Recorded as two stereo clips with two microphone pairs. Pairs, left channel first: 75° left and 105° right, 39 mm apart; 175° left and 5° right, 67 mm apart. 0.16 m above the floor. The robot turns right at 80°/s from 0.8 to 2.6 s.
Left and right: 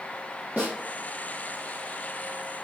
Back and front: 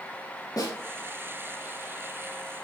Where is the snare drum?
160° right, 3.5 m.